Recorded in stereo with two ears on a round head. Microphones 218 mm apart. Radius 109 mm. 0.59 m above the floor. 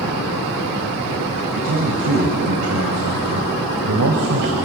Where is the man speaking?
65° right (ahead or behind), 3.5 m; by 4.6 s 70° right (ahead or behind), 2.5 m.